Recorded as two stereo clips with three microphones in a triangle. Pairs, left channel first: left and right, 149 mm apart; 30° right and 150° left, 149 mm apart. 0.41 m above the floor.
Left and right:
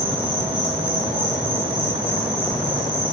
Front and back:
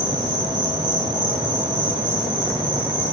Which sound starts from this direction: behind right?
An insect, at 0.0 s.